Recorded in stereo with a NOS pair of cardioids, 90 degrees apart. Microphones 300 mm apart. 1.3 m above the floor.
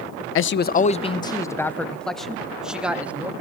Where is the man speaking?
45° left, 0.5 m; by 3.3 s 5° right, 2.0 m.